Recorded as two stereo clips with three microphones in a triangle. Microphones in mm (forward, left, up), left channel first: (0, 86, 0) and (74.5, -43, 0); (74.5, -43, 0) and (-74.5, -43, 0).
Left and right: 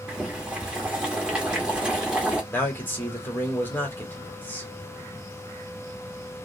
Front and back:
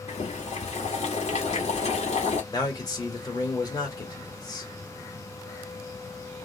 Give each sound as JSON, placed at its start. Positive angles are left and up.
{"t": 0.1, "sound": "boiling", "azimuth_deg": 20, "distance_m": 1.1}
{"t": 2.5, "sound": "a man speaking", "azimuth_deg": 50, "distance_m": 1.3}